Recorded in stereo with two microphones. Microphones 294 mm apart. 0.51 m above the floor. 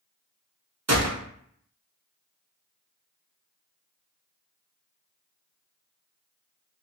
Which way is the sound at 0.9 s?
55° right (ahead or behind).